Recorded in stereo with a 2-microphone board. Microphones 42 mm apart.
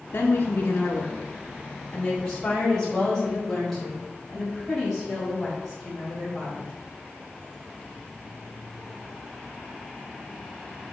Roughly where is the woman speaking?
Left.